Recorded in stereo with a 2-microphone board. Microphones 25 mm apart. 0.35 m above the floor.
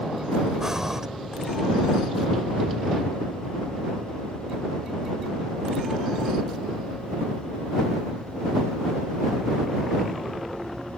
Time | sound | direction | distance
0.6 | breathing | 20° right (ahead or behind) | ?